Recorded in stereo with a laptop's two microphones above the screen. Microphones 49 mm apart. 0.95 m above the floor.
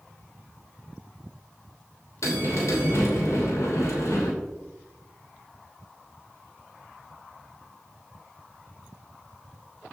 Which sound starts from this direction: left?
A bell, at 2.2 s.